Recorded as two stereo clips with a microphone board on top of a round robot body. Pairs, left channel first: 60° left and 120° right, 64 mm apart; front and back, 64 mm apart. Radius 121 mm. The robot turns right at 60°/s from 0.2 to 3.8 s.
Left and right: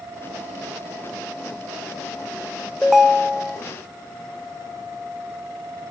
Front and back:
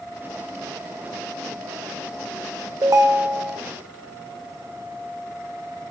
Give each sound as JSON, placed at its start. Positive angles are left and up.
{"t": 2.8, "sound": "a ringtone", "azimuth_deg": 145, "distance_m": 1.0}